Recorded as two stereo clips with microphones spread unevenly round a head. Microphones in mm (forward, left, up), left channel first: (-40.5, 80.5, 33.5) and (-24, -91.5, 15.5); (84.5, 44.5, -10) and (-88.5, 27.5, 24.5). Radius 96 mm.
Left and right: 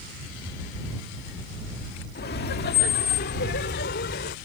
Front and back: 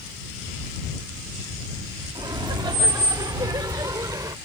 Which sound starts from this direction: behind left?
Laughter, at 2.1 s.